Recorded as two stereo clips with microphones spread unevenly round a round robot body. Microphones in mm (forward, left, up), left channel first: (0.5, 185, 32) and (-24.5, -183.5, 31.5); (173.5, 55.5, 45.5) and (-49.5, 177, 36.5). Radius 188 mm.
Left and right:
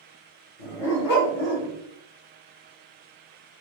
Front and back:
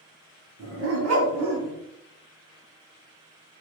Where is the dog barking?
110° left, 1.4 m; by 1.8 s 165° left, 1.0 m.